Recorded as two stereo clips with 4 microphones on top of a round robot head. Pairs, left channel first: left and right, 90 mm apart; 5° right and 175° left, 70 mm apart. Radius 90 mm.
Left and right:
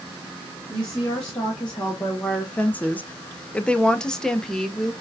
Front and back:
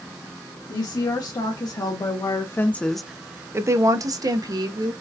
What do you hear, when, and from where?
0.7 s a woman speaking: 10° left, 1.5 m; by 4.9 s 175° left, 1.3 m